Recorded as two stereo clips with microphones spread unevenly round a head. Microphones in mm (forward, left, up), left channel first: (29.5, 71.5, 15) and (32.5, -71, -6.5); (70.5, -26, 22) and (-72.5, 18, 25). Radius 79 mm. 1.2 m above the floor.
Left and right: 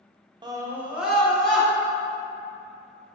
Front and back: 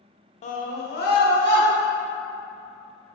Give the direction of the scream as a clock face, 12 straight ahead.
2 o'clock.